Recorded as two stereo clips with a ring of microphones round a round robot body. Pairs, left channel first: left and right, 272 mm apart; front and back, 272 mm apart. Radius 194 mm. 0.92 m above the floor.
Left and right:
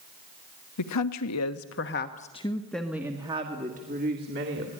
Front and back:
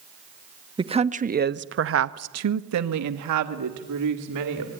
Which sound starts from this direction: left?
A woman speaking, at 0.8 s.